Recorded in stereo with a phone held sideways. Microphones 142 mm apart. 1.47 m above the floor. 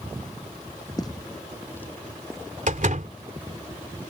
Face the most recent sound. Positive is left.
turn(degrees=-65)  # may be behind; listen again after turning